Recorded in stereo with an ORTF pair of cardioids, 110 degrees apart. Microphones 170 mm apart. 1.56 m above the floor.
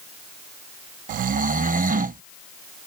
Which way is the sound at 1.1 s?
55° right.